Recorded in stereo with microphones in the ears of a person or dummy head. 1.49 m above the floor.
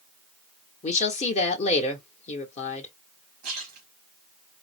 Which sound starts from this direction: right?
A splash, at 3.4 s.